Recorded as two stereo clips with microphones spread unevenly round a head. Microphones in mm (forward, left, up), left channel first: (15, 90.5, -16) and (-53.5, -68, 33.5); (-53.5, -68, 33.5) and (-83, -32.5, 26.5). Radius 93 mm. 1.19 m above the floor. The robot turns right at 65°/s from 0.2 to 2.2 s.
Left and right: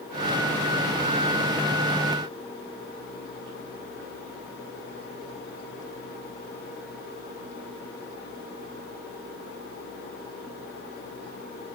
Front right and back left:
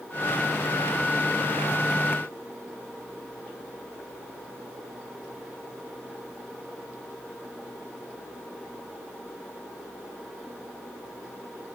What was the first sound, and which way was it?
Only background noise.